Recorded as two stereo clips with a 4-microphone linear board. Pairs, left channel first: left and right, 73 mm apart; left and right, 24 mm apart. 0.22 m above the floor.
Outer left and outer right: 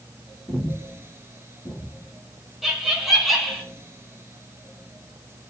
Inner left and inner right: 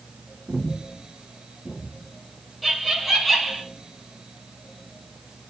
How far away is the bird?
I don't hear a bird.